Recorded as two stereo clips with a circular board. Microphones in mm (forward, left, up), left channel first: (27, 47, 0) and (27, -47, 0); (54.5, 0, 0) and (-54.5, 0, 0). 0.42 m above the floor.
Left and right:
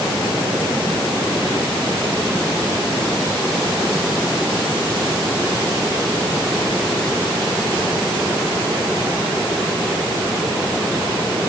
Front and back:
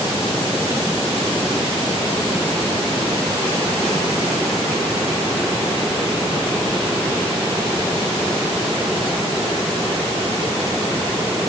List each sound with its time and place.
Only background noise.